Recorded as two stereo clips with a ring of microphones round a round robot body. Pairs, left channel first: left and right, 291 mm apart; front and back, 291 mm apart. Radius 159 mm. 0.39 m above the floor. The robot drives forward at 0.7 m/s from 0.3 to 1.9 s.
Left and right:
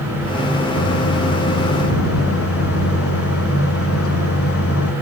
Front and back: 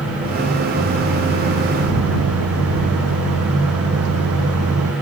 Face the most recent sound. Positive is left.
turn(degrees=130)